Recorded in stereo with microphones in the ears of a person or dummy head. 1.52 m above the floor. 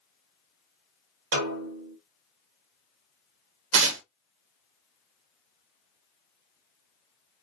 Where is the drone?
I don't hear a drone.